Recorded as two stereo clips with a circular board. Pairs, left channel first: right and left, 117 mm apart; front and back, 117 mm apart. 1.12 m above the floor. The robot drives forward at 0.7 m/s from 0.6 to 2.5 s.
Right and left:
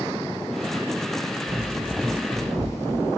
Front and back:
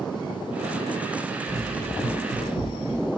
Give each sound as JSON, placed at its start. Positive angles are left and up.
{"t": 1.5, "sound": "running footsteps", "azimuth_deg": 30, "distance_m": 1.4}